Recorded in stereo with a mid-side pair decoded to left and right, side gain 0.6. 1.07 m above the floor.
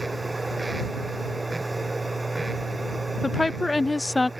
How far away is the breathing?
No breathing in this recording.